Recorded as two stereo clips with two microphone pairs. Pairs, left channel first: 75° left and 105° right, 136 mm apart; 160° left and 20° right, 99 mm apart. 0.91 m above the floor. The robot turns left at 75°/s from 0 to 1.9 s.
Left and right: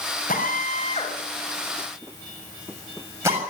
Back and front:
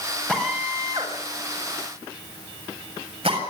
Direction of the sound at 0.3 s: 85° left.